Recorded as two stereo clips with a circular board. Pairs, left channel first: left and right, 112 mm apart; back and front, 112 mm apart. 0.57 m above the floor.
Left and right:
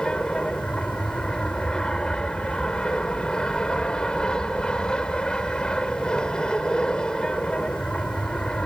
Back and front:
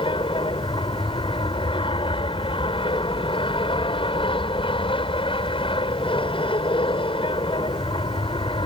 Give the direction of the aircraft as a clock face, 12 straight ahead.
6 o'clock.